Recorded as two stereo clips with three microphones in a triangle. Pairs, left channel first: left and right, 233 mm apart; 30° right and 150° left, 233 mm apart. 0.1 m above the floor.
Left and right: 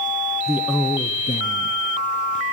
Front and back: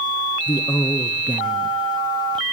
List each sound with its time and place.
0.5 s a man speaking: 45° right, 1.3 m; by 2.4 s 85° left, 2.5 m